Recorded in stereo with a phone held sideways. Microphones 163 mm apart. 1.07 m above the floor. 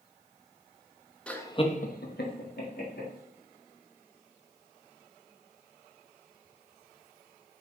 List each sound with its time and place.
1.3 s laughter: 5° left (ahead or behind), 1.0 m; by 3.1 s 70° left (ahead or behind), 2 m